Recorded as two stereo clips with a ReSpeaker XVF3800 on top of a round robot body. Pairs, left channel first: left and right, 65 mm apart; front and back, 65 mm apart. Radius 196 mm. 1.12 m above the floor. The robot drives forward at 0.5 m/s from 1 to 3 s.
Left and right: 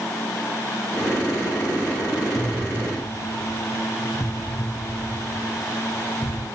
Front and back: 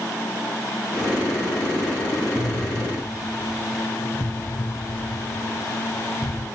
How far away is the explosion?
About 0.9 m.